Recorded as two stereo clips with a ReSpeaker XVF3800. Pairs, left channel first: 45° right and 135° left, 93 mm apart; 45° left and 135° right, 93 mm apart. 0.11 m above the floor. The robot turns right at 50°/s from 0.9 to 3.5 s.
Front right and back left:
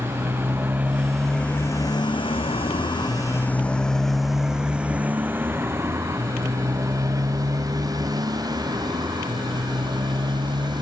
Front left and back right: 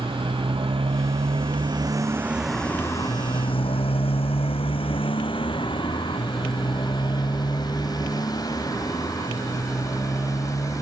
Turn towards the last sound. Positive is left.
turn(degrees=100)